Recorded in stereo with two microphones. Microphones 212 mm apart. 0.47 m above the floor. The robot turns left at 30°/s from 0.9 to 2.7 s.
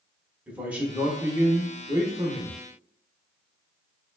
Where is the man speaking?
5° right (ahead or behind), 0.7 m; by 2.6 s 20° right (ahead or behind), 0.7 m.